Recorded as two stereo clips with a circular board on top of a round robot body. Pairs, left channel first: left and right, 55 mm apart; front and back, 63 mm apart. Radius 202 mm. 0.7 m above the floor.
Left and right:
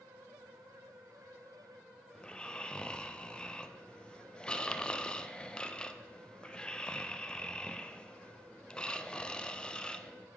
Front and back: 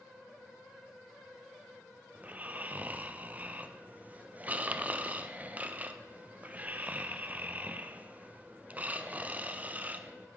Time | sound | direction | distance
2.1 | snoring | 145° left | 0.6 m